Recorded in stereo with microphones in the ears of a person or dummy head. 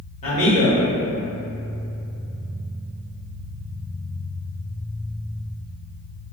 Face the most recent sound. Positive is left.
turn(degrees=35)  # may be behind; listen again after turning